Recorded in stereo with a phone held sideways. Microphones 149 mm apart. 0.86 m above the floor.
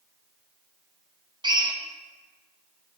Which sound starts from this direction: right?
A drill, at 1.4 s.